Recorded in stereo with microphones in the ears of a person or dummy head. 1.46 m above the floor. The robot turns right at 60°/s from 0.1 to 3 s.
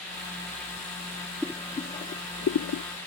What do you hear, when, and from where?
1.4 s boiling: 5° left (ahead or behind); by 2.8 s 75° left (ahead or behind)